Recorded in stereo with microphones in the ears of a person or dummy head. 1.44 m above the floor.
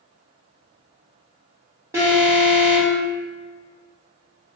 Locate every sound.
1.9 s an alarm: 10° right (ahead or behind), 1.4 m